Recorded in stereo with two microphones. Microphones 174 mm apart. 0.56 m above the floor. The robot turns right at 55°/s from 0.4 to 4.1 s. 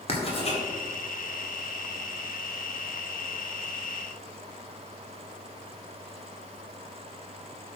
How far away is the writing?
About 1.9 m.